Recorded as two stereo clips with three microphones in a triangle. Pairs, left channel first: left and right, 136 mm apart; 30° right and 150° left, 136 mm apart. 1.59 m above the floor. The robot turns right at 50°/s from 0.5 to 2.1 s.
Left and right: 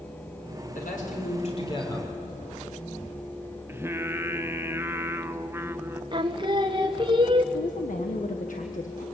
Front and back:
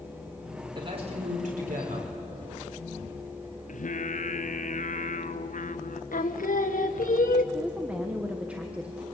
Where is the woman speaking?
70° left, 1.3 m.